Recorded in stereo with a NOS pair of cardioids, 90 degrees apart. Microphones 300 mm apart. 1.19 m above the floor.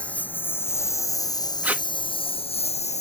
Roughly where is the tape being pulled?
Ahead.